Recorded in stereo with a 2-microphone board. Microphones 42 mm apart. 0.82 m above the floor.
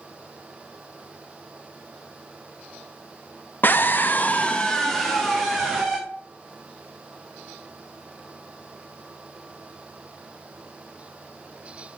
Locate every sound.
3.6 s a scream: 50° left (ahead or behind), 0.6 m; by 6.0 s 5° right (ahead or behind), 1.5 m